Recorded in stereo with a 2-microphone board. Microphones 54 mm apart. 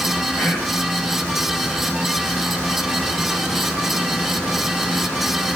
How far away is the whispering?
About 2 m.